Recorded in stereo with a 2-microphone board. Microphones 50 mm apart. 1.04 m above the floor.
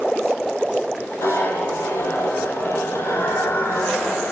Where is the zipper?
85° left, 8 m.